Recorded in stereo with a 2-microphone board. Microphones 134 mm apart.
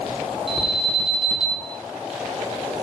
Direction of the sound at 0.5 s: 40° right (ahead or behind).